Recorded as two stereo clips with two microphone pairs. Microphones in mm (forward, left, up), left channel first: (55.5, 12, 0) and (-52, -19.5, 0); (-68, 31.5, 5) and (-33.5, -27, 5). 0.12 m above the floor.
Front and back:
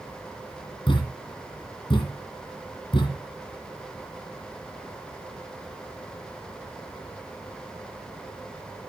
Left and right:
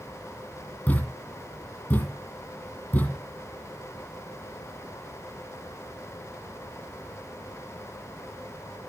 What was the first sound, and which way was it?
A thud, 60° left.